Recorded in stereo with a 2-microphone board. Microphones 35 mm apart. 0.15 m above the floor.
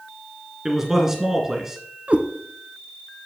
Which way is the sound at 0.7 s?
15° right (ahead or behind).